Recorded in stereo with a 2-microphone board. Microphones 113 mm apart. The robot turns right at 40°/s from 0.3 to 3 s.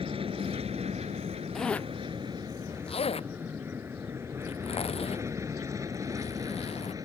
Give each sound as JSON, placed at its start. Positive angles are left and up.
{"t": 0.0, "sound": "an aircraft", "side_deg": -55}
{"t": 1.6, "sound": "a zipper", "side_deg": 0}